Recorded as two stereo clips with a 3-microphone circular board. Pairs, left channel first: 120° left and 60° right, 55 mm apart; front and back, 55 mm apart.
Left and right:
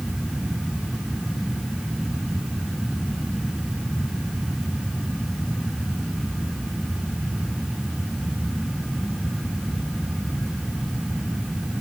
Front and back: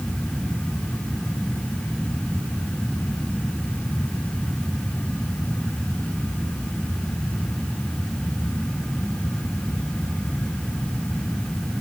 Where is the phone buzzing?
No phone buzzing in this recording.